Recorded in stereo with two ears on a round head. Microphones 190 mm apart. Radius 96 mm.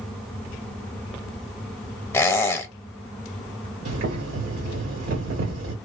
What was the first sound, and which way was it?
A squeak, 15° left (ahead or behind).